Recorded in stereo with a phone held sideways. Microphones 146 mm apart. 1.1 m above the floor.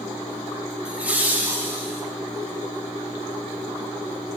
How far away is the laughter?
About 0.6 m.